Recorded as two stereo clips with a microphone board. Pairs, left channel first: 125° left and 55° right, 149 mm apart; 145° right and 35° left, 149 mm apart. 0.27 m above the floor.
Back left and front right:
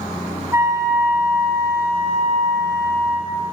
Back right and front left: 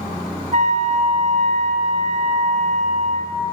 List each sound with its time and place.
0.5 s a flute: 10° left, 2.5 m